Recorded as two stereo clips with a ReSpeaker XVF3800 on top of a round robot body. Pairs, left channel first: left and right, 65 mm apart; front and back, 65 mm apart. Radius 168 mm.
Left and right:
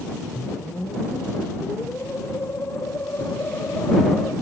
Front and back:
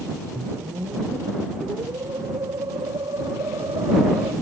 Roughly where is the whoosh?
Behind left.